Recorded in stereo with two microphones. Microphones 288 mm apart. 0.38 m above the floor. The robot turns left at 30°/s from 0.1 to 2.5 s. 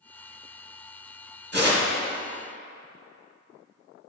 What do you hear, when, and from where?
1.5 s tearing paper: 40° right (ahead or behind), 1.0 m; by 1.9 s 35° right (ahead or behind), 1.0 m